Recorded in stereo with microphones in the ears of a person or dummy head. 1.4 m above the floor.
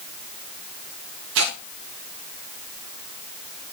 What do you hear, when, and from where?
1.4 s tearing paper: 70° right (ahead or behind), 1.2 m